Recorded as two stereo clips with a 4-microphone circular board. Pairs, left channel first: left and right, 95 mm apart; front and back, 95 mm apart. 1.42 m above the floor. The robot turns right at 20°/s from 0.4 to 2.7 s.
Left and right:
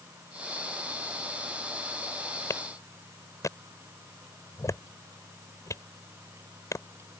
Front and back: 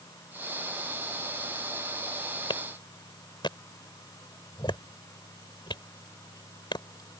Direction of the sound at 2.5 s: 30° left.